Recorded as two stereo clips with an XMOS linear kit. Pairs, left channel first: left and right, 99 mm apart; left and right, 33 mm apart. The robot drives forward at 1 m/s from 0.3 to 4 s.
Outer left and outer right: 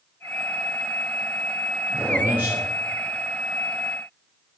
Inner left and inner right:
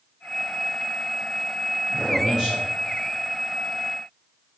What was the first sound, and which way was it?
A man speaking, 20° right (ahead or behind).